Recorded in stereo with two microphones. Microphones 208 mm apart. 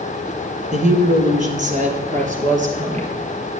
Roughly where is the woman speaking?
Right.